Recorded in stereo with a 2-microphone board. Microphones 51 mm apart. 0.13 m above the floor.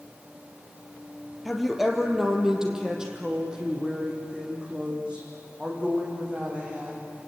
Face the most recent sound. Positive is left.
turn(degrees=-25)  # may be behind; listen again after turning